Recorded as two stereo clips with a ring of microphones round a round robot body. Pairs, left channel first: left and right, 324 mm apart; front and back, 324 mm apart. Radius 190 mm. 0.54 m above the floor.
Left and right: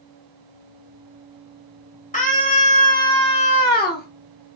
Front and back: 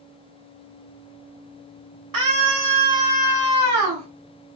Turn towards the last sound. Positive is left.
turn(degrees=145)